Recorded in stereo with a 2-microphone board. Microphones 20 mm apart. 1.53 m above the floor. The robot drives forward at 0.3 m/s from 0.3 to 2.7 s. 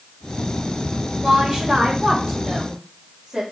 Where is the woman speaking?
45° right (ahead or behind), 2 m; by 3.4 s 40° right (ahead or behind), 2.5 m.